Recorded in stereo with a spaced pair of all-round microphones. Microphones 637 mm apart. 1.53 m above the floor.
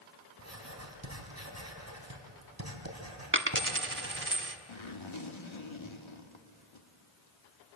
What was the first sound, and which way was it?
Writing, 25° right (ahead or behind).